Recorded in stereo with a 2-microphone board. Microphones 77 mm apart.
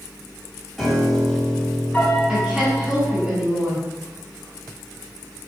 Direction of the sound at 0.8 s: 5° left (ahead or behind).